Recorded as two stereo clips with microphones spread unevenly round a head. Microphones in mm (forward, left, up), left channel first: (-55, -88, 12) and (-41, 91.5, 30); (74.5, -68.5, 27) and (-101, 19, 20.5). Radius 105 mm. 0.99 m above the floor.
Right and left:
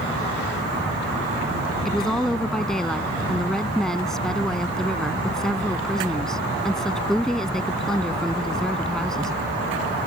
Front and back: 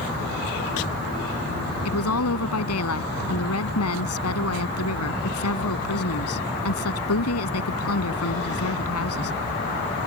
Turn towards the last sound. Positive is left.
turn(degrees=-5)